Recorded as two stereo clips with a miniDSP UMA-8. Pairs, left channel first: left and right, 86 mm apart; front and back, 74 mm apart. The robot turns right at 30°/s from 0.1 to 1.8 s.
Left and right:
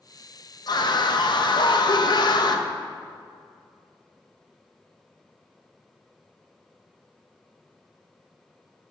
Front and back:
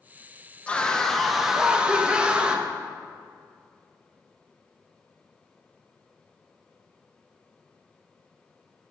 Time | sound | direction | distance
0.7 | a scream | 70° left | 0.7 m